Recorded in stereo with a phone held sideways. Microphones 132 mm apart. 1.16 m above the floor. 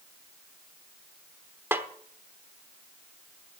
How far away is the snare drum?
About 1.0 m.